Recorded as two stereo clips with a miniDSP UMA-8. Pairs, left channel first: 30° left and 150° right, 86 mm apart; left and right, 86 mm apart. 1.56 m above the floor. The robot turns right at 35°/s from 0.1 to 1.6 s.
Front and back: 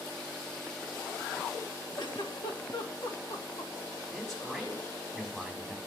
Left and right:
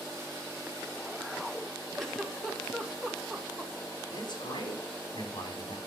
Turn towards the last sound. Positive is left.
turn(degrees=115)